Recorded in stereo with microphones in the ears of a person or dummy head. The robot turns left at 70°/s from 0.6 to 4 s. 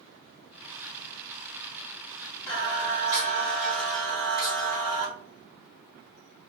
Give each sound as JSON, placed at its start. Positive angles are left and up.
{"t": 2.5, "sound": "singing", "azimuth_deg": 5, "distance_m": 1.7}